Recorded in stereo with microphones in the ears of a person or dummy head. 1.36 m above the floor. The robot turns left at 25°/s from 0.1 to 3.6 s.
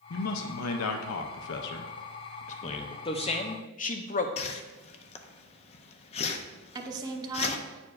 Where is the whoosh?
30° left (ahead or behind), 0.5 m.